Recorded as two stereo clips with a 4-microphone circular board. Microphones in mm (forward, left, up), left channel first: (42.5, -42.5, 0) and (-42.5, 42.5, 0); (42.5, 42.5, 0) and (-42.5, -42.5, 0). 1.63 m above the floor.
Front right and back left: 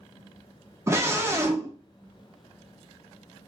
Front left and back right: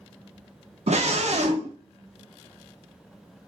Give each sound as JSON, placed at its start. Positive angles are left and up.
{"t": 0.9, "sound": "a scream", "azimuth_deg": -155, "distance_m": 1.3}